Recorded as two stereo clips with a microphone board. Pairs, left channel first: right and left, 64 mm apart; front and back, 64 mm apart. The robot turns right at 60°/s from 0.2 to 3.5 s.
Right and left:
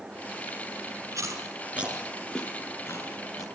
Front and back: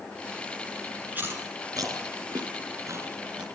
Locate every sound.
1.1 s chewing: 115° left, 4 m; by 3.5 s 105° right, 4 m